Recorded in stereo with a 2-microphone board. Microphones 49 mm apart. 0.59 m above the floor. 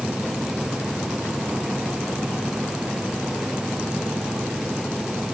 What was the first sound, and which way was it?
Only background noise.